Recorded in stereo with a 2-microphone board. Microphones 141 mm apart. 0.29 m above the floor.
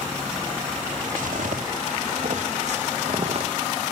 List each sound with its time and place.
1.2 s footsteps: 80° right, 2.5 m; by 3.5 s 50° right (ahead or behind), 3 m